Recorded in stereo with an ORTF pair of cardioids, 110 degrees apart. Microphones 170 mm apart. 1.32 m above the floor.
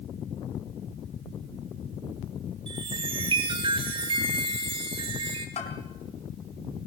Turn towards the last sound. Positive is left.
turn(degrees=40)